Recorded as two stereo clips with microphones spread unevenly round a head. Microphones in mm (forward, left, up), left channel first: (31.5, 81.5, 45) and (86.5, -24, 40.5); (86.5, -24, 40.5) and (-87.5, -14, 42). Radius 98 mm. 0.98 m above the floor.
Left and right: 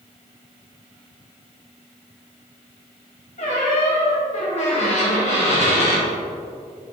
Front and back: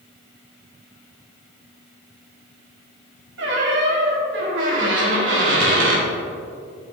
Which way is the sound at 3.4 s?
160° left.